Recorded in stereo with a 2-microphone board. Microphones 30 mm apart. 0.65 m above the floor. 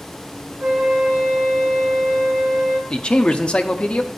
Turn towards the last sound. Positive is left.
turn(degrees=30)  # may be behind; listen again after turning